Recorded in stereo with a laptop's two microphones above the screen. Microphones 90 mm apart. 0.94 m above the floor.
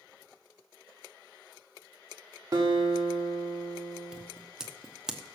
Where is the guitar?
45° right (ahead or behind), 1.9 m.